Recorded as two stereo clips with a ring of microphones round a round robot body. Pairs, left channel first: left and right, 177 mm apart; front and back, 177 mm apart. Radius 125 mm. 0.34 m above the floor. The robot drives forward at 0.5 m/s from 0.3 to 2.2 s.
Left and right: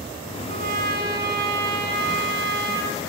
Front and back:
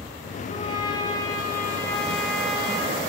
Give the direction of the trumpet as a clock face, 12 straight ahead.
2 o'clock.